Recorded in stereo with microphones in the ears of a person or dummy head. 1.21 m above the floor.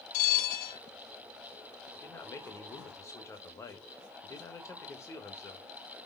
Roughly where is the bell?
Left.